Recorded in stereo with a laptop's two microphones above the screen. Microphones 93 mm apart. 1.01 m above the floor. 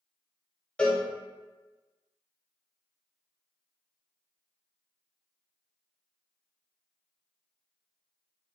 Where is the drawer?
I don't hear a drawer.